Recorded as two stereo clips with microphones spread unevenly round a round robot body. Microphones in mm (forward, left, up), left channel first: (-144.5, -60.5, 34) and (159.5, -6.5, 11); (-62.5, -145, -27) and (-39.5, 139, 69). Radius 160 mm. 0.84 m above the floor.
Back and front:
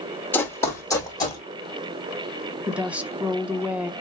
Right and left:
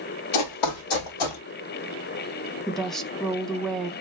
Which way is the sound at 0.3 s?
90° right.